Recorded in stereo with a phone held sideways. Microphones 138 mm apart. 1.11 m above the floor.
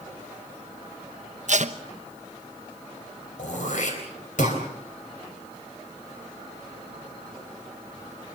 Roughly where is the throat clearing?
Left.